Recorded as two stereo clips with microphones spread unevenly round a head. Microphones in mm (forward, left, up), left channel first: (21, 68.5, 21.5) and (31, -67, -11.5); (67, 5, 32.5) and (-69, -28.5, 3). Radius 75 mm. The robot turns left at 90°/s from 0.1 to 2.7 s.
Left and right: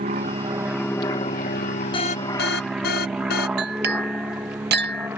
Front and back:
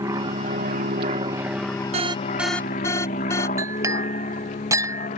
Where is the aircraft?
105° right; by 5.2 s 15° right.